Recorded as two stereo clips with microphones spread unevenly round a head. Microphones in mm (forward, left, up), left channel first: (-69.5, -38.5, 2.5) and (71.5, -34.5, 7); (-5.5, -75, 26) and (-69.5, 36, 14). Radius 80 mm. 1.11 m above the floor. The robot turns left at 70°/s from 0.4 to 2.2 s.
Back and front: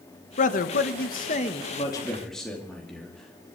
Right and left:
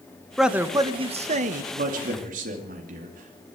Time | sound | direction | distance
0.4 | a man speaking | 155° right | 1.1 m
1.7 | a man speaking | 125° left | 2.5 m